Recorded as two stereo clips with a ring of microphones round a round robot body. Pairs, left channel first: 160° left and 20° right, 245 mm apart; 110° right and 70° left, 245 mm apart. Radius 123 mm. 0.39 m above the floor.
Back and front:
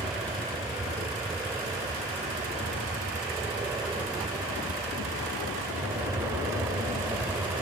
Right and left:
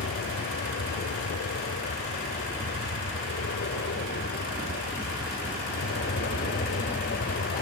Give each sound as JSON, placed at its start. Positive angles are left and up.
{"t": 0.0, "sound": "an aircraft", "azimuth_deg": -100}